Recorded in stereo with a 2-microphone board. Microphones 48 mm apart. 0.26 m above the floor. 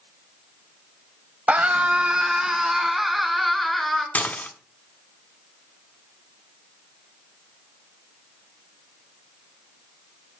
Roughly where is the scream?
Right.